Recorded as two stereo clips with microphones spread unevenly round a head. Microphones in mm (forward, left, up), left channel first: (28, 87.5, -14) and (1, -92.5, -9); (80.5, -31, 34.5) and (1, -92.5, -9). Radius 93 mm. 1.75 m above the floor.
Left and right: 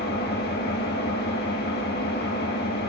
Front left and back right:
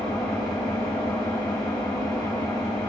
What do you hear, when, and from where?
0.0 s an engine running: 105° left, 1.9 m